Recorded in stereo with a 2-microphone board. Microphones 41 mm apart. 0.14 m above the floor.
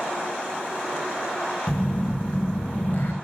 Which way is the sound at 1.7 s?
40° left (ahead or behind).